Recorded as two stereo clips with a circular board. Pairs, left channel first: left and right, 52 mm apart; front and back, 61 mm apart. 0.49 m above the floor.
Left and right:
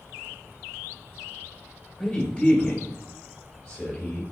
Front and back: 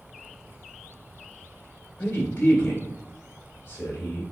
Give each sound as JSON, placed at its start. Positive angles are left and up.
{"t": 2.0, "sound": "a man speaking", "azimuth_deg": 40, "distance_m": 1.8}